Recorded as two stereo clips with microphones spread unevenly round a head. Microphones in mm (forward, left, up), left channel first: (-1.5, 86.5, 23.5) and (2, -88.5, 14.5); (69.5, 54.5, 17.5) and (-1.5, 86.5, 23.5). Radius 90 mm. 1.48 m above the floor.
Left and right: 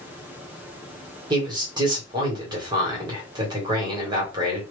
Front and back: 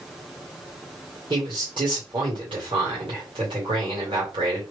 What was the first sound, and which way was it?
A man speaking, 155° right.